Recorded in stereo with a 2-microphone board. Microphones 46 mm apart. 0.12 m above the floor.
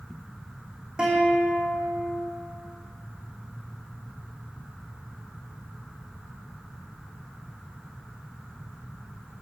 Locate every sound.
1.0 s a guitar: 20° right (ahead or behind), 3 m